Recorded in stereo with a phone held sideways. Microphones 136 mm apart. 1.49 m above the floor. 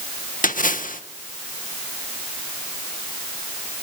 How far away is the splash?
About 1.5 m.